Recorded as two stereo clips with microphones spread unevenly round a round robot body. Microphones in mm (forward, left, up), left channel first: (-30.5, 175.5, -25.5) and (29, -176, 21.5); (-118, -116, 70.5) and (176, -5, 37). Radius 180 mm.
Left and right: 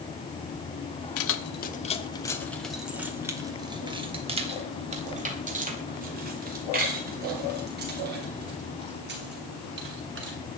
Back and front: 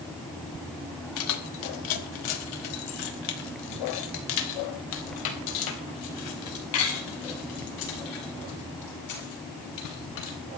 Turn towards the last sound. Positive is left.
turn(degrees=-140)